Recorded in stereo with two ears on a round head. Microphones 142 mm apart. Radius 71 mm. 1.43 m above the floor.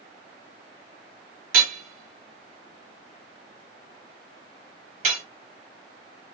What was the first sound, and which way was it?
Hammering, 50° right (ahead or behind).